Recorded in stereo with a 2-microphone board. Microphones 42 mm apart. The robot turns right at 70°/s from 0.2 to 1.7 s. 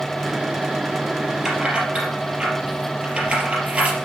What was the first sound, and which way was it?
Keys jangling, 10° right (ahead or behind).